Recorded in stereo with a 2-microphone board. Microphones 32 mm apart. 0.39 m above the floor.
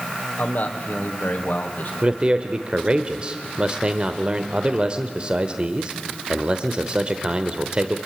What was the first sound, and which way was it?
A man speaking, 50° left (ahead or behind).